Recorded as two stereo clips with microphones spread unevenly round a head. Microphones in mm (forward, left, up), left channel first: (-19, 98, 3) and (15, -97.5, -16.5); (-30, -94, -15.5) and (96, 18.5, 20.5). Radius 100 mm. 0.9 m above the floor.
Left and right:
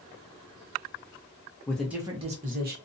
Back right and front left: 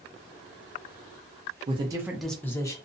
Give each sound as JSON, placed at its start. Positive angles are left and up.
{"t": 1.7, "sound": "a man speaking", "azimuth_deg": 25, "distance_m": 0.6}